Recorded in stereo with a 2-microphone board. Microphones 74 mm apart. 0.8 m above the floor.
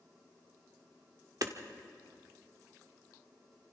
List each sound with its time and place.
1.4 s hammering: 55° right (ahead or behind), 1.3 m